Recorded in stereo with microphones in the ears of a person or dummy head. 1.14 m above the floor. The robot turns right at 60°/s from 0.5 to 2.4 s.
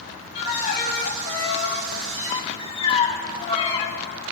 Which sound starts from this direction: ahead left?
A violin, at 0.3 s.